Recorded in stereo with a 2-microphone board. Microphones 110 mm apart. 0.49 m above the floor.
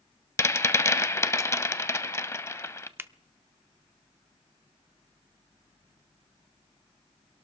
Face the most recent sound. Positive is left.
turn(degrees=-20)  # may be behind; listen again after turning